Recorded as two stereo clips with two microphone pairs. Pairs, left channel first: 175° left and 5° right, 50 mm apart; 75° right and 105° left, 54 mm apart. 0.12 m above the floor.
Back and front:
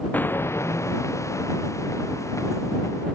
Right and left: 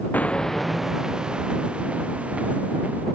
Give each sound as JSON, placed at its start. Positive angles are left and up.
{"t": 0.1, "sound": "footsteps", "azimuth_deg": -130}